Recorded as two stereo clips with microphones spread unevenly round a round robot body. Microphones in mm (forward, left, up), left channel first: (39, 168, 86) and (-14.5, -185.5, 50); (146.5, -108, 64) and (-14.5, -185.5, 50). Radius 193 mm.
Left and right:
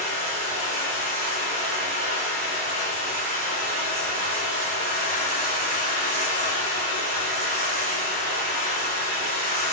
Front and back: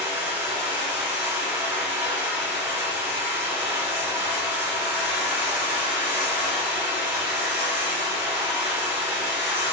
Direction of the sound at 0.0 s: 75° right.